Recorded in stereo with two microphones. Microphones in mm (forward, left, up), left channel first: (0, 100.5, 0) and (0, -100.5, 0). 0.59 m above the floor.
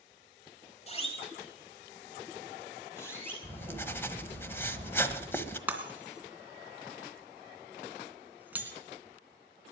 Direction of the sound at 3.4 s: 10° left (ahead or behind).